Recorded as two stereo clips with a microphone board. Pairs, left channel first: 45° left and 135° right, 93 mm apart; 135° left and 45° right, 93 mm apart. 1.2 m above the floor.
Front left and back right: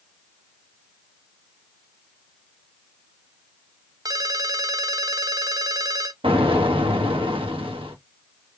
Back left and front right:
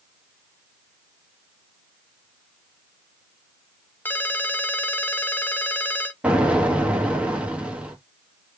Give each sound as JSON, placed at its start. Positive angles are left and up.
{"t": 4.0, "sound": "a ringtone", "azimuth_deg": -165, "distance_m": 0.6}
{"t": 6.2, "sound": "an explosion", "azimuth_deg": -120, "distance_m": 1.2}